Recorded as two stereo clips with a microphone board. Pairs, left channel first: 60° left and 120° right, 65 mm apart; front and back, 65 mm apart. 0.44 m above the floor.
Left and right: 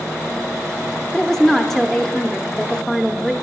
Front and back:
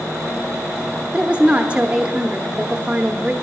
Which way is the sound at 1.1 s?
140° left.